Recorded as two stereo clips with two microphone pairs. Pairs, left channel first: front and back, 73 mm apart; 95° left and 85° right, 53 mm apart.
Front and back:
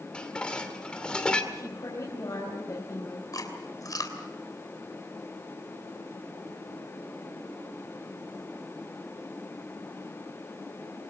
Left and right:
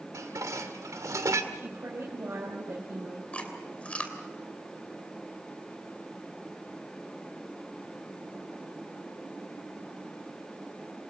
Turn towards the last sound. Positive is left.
turn(degrees=35)